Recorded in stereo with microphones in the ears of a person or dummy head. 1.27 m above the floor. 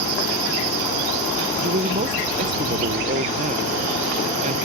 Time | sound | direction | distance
1.6 | a man speaking | 40° right (ahead or behind) | ?